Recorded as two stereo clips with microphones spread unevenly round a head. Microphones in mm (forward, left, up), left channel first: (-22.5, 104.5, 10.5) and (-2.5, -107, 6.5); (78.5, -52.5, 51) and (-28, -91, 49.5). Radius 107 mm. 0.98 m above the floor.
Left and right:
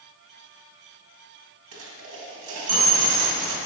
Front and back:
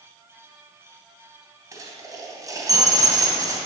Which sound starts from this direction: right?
A dropped coin, at 1.7 s.